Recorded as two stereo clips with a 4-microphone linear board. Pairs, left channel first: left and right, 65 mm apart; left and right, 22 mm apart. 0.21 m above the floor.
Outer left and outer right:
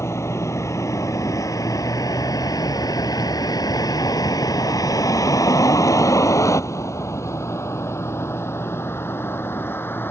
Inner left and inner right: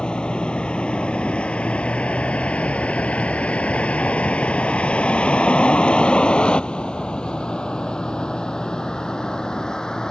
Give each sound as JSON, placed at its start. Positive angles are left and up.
{"t": 0.0, "sound": "a vehicle", "side_deg": 45}